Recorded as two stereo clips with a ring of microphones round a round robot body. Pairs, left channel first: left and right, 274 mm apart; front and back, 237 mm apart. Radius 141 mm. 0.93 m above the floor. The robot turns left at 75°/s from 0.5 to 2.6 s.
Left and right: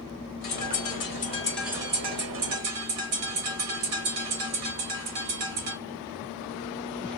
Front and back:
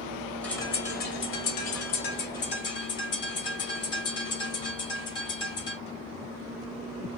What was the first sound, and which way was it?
A bird, 85° left.